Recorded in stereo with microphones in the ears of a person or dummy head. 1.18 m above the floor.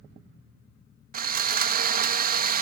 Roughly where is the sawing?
Right.